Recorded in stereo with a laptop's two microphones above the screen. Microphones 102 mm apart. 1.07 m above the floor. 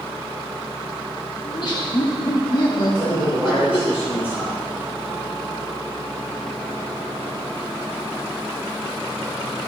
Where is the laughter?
50° left (ahead or behind), 1.9 m.